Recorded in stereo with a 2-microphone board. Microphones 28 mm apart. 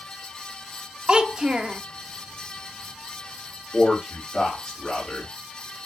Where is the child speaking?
30° right (ahead or behind), 0.5 m.